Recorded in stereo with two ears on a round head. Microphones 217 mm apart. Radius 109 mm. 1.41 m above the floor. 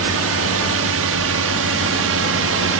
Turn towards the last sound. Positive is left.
turn(degrees=-60)  # may be behind; listen again after turning